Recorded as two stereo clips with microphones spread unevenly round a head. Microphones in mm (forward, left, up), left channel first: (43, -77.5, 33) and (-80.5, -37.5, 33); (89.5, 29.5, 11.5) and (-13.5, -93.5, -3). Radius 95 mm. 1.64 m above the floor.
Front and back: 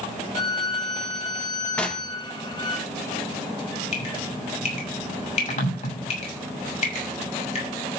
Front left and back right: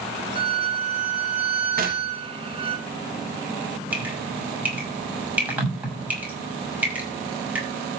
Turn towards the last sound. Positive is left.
turn(degrees=-50)